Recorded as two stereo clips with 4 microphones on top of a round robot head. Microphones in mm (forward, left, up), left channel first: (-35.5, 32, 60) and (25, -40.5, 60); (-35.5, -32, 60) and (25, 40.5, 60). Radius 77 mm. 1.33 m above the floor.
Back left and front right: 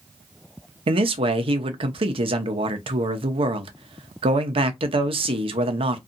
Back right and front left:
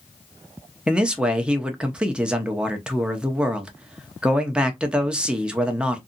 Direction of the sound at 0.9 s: 30° right.